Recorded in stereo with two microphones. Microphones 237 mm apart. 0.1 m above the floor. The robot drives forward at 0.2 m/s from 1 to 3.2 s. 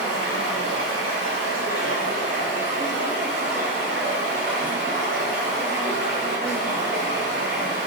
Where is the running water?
70° right (ahead or behind), 0.7 m; by 7.9 s 45° right (ahead or behind), 1.0 m.